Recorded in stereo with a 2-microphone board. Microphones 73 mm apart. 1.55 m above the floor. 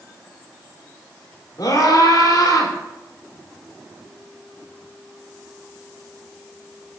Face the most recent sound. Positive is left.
turn(degrees=65)  # may be behind; listen again after turning